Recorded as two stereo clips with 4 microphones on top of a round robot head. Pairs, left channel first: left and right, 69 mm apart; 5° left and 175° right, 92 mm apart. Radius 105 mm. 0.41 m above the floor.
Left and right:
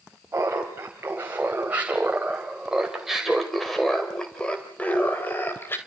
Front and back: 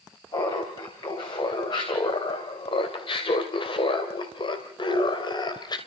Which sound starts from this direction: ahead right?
Laughter, at 0.3 s.